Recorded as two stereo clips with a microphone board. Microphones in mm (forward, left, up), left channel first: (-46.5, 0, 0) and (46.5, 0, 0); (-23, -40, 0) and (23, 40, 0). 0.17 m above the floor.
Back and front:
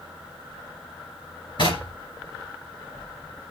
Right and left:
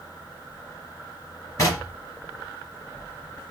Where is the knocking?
170° right, 3 m.